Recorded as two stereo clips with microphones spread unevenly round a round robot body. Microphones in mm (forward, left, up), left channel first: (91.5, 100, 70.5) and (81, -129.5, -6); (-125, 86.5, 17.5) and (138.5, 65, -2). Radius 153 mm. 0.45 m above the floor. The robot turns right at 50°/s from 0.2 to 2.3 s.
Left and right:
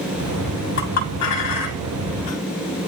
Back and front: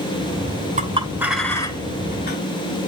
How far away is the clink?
About 2.5 m.